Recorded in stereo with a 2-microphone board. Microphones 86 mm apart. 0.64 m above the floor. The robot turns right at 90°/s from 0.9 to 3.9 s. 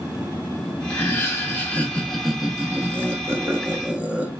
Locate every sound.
0.9 s laughter: 25° left (ahead or behind), 0.5 m; by 4.3 s 15° right (ahead or behind), 0.5 m